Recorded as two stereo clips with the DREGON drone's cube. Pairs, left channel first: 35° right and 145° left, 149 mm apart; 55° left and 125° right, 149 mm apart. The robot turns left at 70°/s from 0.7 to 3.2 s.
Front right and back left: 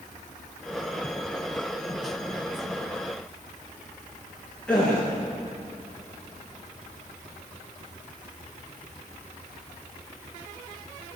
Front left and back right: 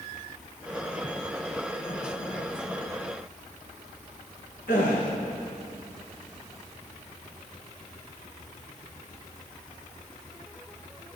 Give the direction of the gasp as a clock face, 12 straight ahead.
10 o'clock.